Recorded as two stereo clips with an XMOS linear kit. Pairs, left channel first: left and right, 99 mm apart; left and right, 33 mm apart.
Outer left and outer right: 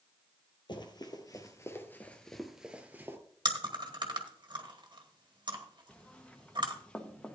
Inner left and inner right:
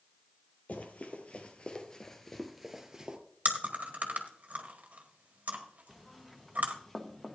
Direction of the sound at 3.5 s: 50° right (ahead or behind).